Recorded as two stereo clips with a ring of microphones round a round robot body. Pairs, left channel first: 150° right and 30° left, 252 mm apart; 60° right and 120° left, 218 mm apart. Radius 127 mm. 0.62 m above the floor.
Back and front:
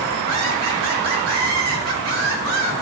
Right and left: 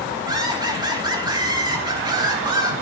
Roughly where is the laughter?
Ahead left.